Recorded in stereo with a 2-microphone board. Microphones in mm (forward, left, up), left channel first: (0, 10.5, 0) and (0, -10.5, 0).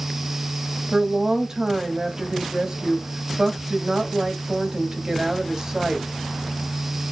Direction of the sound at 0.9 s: 30° right (ahead or behind).